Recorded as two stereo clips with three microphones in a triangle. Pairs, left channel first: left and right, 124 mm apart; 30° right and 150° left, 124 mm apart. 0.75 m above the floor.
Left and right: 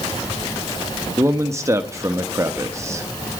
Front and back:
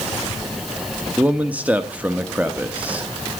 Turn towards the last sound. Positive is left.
turn(degrees=-140)